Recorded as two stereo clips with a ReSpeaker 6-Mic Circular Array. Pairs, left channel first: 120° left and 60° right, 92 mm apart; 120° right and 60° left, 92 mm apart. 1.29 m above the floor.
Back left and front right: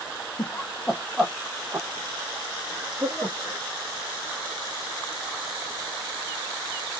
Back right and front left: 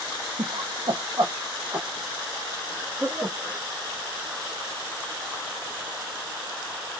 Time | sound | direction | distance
0.4 | laughter | 70° left | 0.5 m